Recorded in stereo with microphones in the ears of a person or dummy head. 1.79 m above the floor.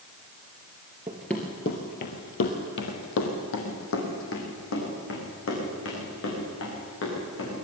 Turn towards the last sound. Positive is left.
turn(degrees=70)  # may be behind; listen again after turning